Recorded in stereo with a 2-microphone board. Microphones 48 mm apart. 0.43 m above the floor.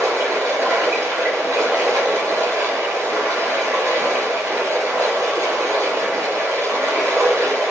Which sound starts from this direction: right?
Running water, at 0.0 s.